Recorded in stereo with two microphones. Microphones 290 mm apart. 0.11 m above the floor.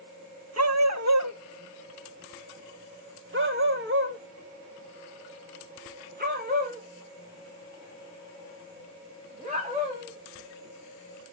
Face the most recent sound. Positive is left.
turn(degrees=-25)  # may be behind; listen again after turning